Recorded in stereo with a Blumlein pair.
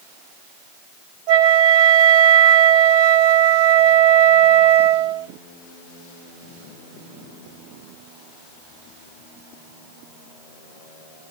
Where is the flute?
45° right, 1.8 m.